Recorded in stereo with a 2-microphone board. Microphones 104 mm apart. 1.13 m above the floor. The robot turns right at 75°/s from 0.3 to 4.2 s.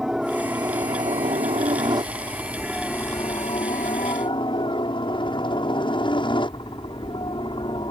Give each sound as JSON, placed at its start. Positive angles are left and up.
{"t": 0.0, "sound": "a helicopter", "azimuth_deg": -175}